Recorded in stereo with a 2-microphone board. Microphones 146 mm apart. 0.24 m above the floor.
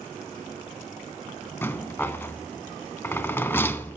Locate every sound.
1.6 s a rattle: 15° left (ahead or behind), 0.6 m